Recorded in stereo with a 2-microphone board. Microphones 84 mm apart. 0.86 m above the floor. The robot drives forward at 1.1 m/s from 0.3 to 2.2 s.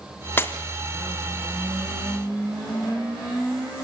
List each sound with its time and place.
0.4 s breaking glass: 25° left (ahead or behind), 2.5 m